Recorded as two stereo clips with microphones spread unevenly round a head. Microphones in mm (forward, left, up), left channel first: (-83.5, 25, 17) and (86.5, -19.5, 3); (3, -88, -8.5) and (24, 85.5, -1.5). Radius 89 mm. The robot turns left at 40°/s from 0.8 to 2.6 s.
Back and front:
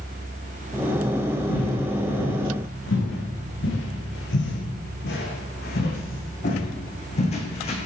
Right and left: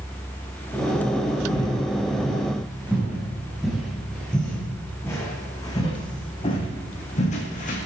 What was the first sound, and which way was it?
Footsteps, 160° right.